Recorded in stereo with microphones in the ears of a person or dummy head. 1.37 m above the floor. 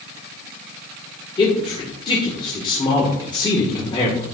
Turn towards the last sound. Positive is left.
turn(degrees=25)  # may be behind; listen again after turning